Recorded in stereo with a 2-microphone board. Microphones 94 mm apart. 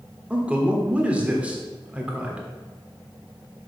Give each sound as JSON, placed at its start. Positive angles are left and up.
{"t": 0.3, "sound": "a man speaking", "side_deg": -15, "distance_m": 1.4}